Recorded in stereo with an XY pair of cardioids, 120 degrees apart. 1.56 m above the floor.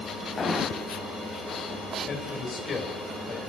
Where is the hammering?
25° left, 8.5 m.